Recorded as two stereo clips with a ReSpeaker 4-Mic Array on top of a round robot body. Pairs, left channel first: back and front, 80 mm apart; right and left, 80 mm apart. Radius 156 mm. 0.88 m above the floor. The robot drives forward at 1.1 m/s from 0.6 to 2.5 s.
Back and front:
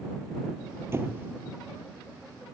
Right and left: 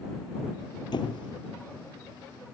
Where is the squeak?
60° right; by 1.3 s 65° right.